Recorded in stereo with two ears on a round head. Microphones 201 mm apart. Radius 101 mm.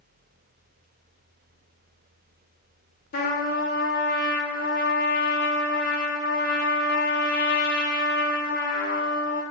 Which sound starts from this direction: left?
A trumpet, at 3.1 s.